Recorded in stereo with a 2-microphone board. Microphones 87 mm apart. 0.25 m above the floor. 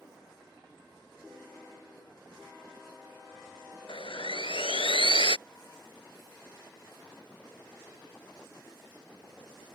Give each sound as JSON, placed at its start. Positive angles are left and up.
{"t": 3.9, "sound": "sawing", "side_deg": 85}